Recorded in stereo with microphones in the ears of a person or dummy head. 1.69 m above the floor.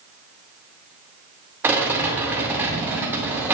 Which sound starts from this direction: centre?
A rattle, at 1.6 s.